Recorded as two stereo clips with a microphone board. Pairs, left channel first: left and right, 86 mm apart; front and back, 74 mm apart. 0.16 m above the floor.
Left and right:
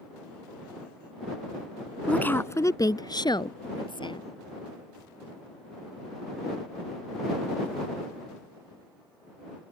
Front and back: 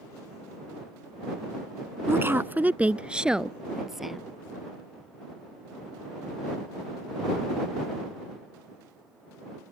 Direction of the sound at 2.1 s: 155° left.